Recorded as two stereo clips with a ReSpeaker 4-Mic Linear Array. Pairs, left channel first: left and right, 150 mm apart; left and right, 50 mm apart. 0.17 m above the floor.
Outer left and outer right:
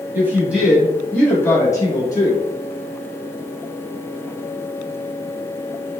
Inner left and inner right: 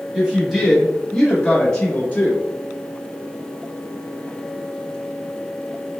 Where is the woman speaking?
15° right (ahead or behind), 1.3 m; by 2.4 s 30° left (ahead or behind), 1.4 m.